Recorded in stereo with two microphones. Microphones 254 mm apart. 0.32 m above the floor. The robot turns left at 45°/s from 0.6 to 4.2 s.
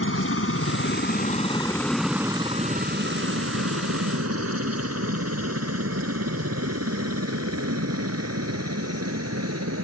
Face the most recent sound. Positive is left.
turn(degrees=-70)  # may be behind; listen again after turning